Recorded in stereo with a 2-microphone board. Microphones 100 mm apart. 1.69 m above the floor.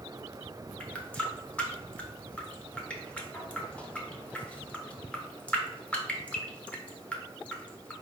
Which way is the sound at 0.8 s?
15° left (ahead or behind).